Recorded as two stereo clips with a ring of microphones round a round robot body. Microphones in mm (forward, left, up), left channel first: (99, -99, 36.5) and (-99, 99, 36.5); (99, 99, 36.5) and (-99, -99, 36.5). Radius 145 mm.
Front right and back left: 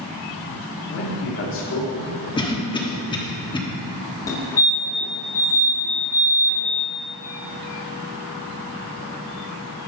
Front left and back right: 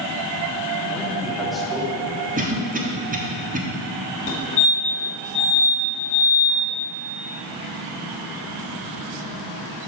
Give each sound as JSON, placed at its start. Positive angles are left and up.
{"t": 0.9, "sound": "a man speaking", "azimuth_deg": -45, "distance_m": 1.6}
{"t": 2.4, "sound": "a cough", "azimuth_deg": -105, "distance_m": 1.2}
{"t": 4.3, "sound": "a fire alarm", "azimuth_deg": 20, "distance_m": 1.8}